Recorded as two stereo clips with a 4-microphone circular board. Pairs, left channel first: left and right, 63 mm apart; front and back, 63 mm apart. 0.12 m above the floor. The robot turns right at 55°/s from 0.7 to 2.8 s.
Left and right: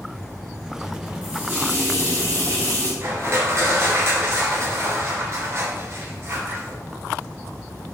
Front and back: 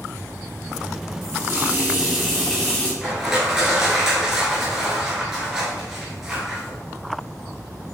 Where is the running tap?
155° right, 1.7 m; by 2.9 s 65° right, 1.7 m.